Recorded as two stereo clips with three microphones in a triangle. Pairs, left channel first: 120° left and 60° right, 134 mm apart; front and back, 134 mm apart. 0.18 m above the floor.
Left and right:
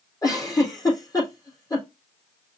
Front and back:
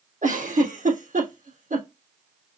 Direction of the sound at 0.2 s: 175° right.